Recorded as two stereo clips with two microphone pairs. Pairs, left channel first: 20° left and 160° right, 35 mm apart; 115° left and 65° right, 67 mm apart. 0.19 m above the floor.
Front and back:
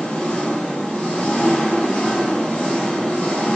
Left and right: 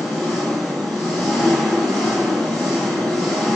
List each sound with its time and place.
0.0 s an engine running: 40° left, 1.2 m